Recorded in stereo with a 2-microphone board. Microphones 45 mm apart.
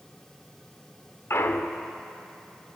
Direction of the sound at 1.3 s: 70° left (ahead or behind).